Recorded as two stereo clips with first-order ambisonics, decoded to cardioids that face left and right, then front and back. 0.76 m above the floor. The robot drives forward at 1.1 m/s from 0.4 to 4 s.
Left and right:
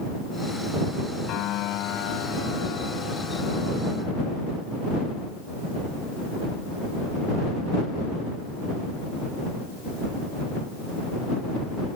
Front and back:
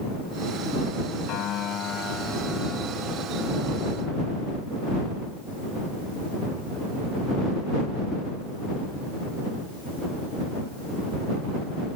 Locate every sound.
1.3 s a piano: 45° left; by 4.3 s 120° left